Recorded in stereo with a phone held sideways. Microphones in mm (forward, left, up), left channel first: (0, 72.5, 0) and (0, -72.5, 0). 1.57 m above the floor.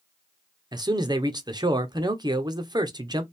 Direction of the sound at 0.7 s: 30° right (ahead or behind).